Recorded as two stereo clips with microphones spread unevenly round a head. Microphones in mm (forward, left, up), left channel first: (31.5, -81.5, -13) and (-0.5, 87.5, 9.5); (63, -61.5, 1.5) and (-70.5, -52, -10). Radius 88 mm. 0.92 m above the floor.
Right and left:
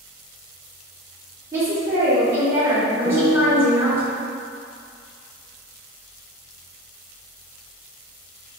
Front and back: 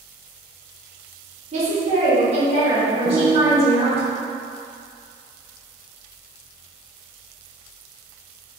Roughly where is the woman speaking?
Behind.